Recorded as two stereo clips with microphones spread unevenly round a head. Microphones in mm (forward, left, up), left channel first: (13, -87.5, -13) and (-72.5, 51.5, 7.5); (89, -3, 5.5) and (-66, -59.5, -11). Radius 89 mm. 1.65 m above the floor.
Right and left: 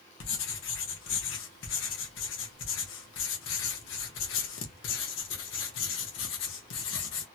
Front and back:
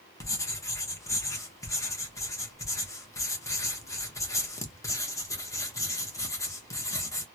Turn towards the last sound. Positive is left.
turn(degrees=-50)